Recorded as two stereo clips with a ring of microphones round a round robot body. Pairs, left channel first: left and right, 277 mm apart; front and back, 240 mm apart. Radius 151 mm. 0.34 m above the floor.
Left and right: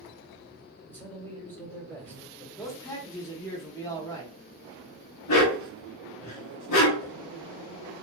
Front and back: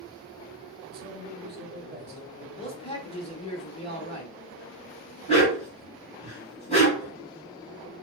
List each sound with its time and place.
0.9 s a man speaking: 170° left, 1.1 m
2.6 s a man speaking: 25° left, 1.1 m
5.3 s a dog barking: 65° left, 1.6 m